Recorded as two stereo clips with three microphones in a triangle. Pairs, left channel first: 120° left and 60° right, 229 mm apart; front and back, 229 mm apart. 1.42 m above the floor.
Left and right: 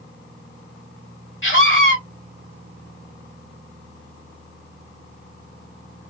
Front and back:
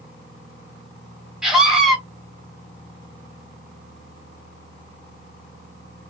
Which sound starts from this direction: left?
A scream, at 1.4 s.